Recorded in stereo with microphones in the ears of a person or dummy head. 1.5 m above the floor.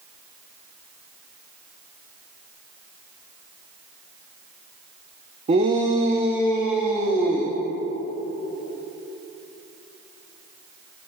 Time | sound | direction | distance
5.5 | a shout | 35° right (ahead or behind) | 0.8 m